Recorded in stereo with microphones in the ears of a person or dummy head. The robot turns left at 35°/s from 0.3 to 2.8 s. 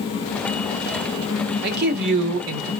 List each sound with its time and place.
1.6 s a man speaking: 55° right, 1.2 m; by 2.7 s 95° right, 1.2 m